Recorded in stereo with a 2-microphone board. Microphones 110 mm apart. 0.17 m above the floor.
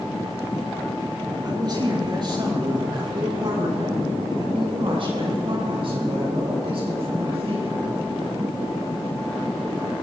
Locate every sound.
1.4 s a man speaking: 40° right (ahead or behind), 4 m; by 7.9 s 60° right (ahead or behind), 8.5 m